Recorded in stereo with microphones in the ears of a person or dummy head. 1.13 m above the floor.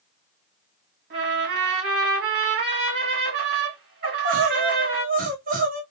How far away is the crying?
About 0.9 m.